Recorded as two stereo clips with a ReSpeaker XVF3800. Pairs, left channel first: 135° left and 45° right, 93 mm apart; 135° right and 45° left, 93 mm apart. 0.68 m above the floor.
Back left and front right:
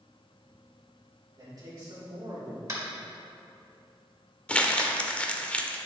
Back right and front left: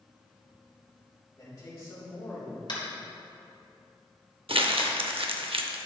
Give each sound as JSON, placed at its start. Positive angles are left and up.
{"t": 1.4, "sound": "a man speaking", "azimuth_deg": -85, "distance_m": 2.5}
{"t": 2.7, "sound": "tapping", "azimuth_deg": -100, "distance_m": 1.9}
{"t": 4.5, "sound": "crumpling", "azimuth_deg": 55, "distance_m": 0.6}